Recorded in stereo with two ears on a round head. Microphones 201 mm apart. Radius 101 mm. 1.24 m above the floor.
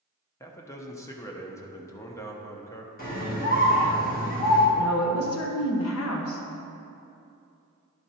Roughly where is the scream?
Left.